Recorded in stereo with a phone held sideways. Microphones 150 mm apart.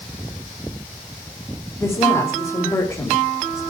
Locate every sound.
1.8 s a woman speaking: 20° left (ahead or behind), 3.5 m